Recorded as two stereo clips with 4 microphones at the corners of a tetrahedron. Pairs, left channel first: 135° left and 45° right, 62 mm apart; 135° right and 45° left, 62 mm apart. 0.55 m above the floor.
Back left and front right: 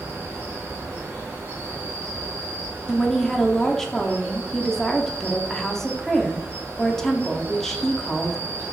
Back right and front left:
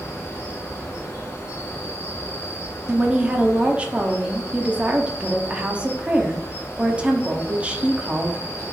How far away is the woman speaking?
About 0.6 m.